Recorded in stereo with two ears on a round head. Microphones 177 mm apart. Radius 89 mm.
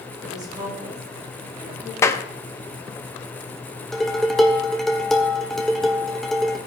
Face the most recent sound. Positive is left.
turn(degrees=0)  # may be behind; listen again after turning